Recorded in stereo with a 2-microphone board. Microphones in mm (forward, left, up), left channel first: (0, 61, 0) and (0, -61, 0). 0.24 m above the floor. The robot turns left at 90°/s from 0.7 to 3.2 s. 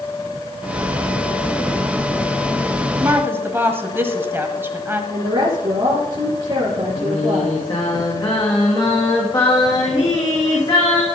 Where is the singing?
40° left (ahead or behind), 5 m.